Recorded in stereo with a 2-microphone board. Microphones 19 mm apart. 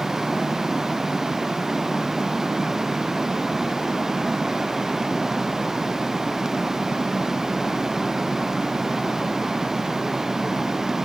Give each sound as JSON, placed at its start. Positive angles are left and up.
{"t": 0.0, "sound": "running water", "side_deg": -20}